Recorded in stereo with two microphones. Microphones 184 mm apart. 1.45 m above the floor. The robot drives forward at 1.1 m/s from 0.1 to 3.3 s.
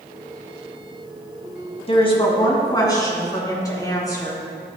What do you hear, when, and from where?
1.9 s a woman speaking: 35° left (ahead or behind), 2 m; by 4.4 s 20° left (ahead or behind), 3.5 m